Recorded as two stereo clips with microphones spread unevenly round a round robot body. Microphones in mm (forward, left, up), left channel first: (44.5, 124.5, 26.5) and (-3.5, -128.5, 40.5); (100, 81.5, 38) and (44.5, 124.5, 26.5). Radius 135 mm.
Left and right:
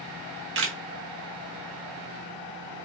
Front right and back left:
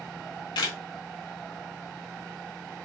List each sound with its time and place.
0.1 s a camera shutter: 60° right, 1.0 m